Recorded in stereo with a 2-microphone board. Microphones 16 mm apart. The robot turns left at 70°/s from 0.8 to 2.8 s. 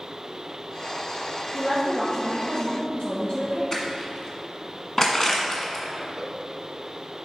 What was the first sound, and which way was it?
A woman speaking, 175° left.